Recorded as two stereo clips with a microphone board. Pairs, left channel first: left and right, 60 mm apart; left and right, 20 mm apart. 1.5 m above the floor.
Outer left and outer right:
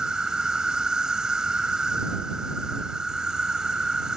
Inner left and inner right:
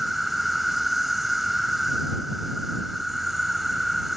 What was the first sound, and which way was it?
An insect, 10° right (ahead or behind).